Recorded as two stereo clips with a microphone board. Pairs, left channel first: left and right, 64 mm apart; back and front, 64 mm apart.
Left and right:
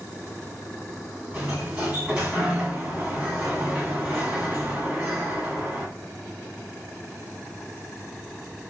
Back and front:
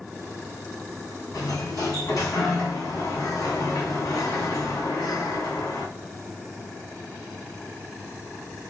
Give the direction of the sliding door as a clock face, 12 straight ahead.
5 o'clock.